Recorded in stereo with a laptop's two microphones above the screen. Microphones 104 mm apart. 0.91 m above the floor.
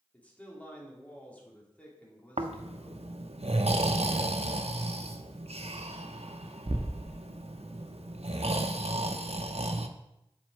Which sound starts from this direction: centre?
A man speaking, at 0.1 s.